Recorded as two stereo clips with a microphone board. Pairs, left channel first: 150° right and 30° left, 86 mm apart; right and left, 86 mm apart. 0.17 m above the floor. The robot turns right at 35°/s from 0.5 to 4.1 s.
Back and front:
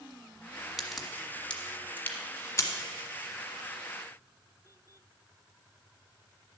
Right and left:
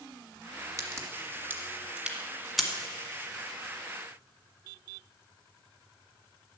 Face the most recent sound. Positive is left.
turn(degrees=-130)